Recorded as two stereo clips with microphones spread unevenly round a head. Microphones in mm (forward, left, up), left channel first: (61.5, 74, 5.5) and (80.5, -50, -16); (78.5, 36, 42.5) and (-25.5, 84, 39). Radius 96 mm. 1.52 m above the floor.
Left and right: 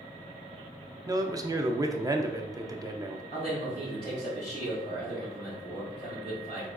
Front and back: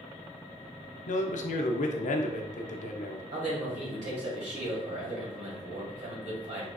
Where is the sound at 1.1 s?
20° right, 0.5 m.